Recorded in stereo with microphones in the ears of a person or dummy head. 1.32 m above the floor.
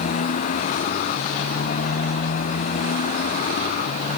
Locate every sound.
0.0 s a motorcycle: 40° left (ahead or behind)